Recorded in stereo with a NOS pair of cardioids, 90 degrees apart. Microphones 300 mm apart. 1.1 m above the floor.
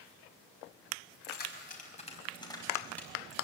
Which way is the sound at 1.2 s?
35° left.